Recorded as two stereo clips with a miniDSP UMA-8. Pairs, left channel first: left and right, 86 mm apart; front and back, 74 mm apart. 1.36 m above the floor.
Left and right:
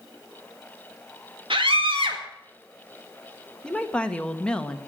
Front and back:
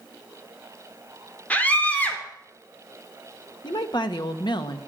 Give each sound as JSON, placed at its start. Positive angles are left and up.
{"t": 1.5, "sound": "a scream", "azimuth_deg": -70, "distance_m": 4.0}
{"t": 3.6, "sound": "a woman speaking", "azimuth_deg": 10, "distance_m": 1.5}